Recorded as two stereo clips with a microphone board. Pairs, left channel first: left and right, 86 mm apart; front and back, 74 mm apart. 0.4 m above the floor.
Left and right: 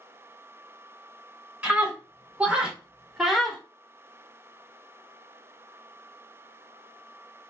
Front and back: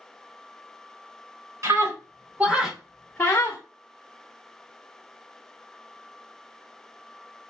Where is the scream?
160° right, 1.2 m; by 3.6 s straight ahead, 0.9 m.